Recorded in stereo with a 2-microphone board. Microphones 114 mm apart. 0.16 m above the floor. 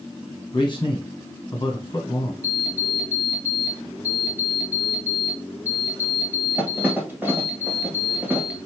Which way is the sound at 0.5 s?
40° left (ahead or behind).